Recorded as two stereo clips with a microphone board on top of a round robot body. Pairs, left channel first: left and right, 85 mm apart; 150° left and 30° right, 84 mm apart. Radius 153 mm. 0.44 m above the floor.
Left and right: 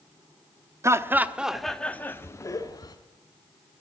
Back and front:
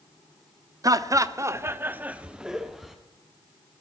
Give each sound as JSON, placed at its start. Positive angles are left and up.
{"t": 0.8, "sound": "laughter", "azimuth_deg": -50, "distance_m": 0.9}